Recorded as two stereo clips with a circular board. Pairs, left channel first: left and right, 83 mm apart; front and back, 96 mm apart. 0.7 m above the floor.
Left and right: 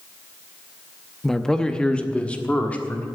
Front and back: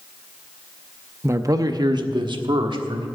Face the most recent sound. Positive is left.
turn(degrees=160)